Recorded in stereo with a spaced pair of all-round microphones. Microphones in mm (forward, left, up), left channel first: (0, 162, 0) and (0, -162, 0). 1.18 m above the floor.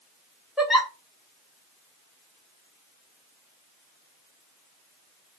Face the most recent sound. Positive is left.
turn(degrees=0)  # may be behind; listen again after turning